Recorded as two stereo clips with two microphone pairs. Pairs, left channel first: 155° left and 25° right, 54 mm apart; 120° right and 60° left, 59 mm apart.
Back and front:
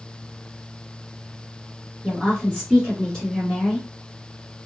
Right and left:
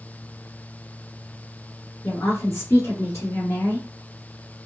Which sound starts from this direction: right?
A woman speaking, at 2.0 s.